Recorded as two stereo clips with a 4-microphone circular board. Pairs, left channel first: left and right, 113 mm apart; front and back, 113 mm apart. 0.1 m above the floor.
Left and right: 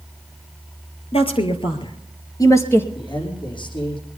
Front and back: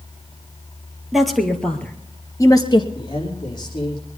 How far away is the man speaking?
About 6 m.